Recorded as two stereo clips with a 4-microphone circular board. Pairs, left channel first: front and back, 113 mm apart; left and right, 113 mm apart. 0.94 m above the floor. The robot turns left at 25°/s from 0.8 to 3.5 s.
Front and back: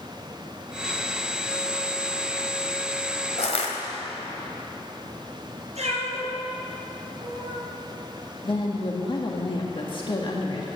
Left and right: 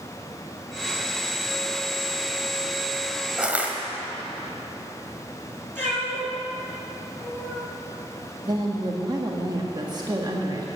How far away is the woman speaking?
About 1.6 m.